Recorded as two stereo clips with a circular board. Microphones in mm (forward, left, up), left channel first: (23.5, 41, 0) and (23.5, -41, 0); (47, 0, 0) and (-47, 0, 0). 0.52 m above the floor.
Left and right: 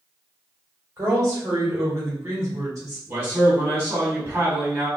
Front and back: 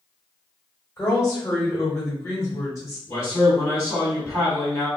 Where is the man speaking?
45° right, 1.8 m.